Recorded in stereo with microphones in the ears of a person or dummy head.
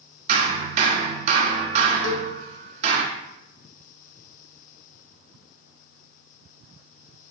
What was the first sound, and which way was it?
Hammering, 40° right (ahead or behind).